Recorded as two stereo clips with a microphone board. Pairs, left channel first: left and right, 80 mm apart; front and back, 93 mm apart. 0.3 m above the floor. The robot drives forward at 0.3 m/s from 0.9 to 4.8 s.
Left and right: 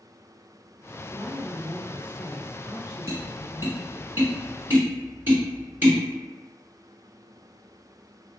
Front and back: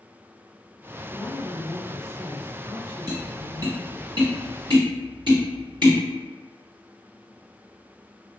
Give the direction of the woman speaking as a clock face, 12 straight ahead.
2 o'clock.